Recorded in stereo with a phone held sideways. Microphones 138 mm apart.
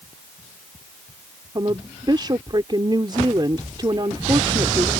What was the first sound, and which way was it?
A woman speaking, 35° right (ahead or behind).